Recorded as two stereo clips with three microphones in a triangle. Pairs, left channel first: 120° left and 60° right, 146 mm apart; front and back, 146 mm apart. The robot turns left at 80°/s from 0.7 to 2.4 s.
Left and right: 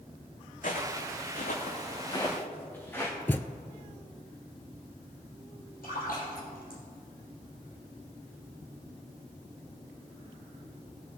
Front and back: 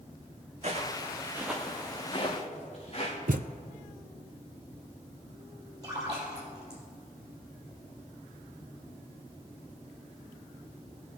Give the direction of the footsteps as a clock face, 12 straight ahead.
7 o'clock.